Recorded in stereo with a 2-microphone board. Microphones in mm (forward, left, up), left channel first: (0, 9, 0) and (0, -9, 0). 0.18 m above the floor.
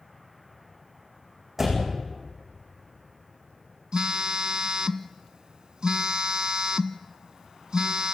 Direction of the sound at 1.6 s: 10° right (ahead or behind).